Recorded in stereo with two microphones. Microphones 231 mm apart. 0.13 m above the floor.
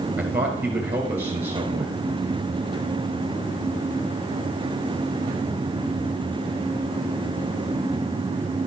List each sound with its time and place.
0.2 s a man speaking: 10° right (ahead or behind), 2.5 m